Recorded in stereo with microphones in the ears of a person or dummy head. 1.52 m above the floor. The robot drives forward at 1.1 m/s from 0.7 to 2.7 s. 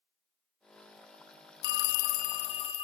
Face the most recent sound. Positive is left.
turn(degrees=25)  # may be behind; listen again after turning